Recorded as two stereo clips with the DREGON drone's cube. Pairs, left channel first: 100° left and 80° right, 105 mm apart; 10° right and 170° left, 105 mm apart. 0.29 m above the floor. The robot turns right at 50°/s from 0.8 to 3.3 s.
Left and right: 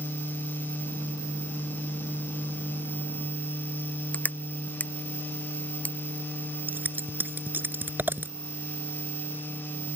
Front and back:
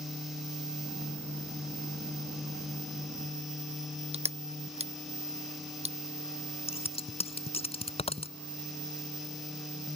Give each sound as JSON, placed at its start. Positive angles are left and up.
{"t": 4.1, "sound": "crushing", "azimuth_deg": 175}
{"t": 6.7, "sound": "scissors", "azimuth_deg": -10}